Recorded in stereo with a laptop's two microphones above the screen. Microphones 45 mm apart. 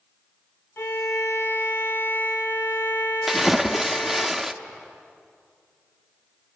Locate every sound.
0.8 s a violin: 55° left (ahead or behind), 1.1 m
3.3 s a splash: 5° right (ahead or behind), 0.9 m